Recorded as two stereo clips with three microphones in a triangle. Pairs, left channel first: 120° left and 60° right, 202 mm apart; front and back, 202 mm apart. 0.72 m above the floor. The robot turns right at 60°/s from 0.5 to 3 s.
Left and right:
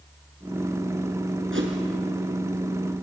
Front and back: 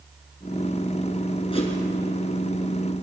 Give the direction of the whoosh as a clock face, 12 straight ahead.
2 o'clock.